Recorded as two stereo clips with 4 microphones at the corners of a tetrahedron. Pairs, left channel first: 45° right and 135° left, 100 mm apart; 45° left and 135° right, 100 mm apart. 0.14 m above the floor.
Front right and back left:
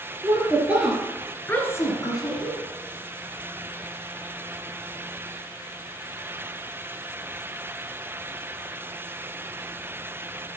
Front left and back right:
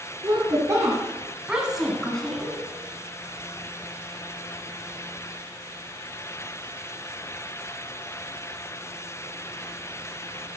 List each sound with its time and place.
0.2 s a woman speaking: 175° right, 2.5 m; by 2.6 s 30° right, 2.5 m